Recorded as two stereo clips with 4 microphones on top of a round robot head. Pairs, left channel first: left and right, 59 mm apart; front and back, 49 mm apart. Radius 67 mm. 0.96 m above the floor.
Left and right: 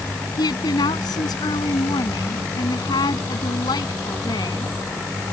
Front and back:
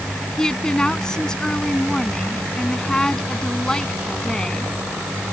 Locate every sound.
0.4 s a woman speaking: 75° left